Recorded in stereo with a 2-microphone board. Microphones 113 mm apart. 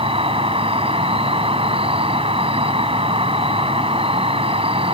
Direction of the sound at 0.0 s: 60° right (ahead or behind).